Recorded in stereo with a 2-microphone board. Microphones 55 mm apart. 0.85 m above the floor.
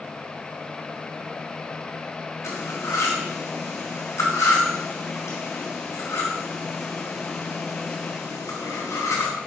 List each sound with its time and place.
2.4 s cutlery clinking: 60° left (ahead or behind), 3.5 m